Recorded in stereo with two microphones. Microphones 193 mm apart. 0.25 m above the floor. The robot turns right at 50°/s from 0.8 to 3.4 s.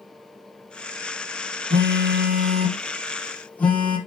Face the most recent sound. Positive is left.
turn(degrees=5)